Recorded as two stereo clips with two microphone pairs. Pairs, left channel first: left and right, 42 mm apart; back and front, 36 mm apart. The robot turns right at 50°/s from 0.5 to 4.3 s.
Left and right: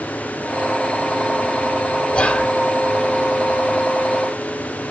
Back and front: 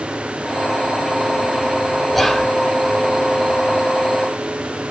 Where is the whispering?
95° left, 1.3 m; by 2.5 s 110° left, 1.3 m.